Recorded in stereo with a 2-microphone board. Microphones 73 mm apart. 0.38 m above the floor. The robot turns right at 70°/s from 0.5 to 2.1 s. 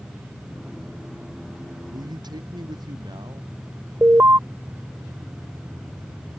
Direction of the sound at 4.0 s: 40° right (ahead or behind).